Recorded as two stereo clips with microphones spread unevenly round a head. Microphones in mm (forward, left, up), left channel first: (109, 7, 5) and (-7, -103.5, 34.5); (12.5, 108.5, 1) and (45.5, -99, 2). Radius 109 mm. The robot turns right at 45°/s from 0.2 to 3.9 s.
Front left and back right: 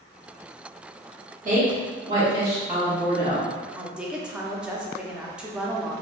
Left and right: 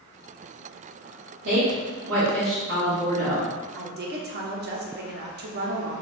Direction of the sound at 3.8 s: 70° right.